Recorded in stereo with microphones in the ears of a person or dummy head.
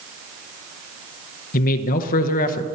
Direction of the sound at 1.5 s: 50° left (ahead or behind).